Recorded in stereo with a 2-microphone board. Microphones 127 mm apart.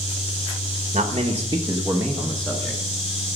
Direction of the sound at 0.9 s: 70° right (ahead or behind).